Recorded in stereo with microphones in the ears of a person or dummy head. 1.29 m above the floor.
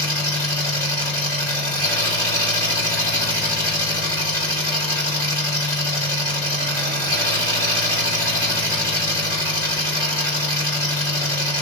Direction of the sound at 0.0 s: 20° left (ahead or behind).